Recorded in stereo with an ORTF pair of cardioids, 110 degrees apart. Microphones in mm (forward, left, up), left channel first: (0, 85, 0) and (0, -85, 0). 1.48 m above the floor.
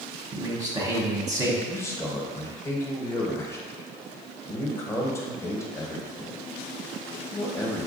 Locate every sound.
0.3 s a man speaking: 15° right, 0.9 m
1.7 s a man speaking: 15° left, 0.9 m